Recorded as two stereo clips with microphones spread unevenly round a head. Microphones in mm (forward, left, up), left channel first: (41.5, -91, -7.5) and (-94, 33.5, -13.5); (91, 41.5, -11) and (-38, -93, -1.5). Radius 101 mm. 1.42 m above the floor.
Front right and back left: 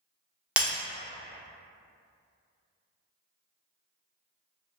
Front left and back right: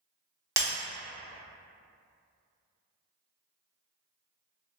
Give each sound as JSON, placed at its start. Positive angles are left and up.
{"t": 0.6, "sound": "breaking glass", "azimuth_deg": -150, "distance_m": 1.0}